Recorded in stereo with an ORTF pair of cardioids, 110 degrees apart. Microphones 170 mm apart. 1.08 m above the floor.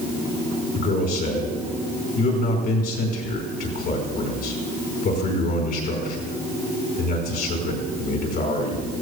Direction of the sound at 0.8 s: 65° left.